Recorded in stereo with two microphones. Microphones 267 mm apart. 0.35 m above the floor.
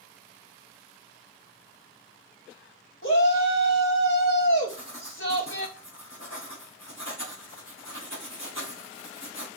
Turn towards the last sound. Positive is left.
turn(degrees=75)  # may be behind; listen again after turning